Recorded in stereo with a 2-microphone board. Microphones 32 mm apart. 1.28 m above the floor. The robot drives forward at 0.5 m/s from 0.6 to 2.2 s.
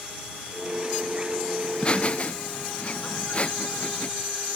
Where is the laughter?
25° left (ahead or behind); by 4.1 s 35° left (ahead or behind).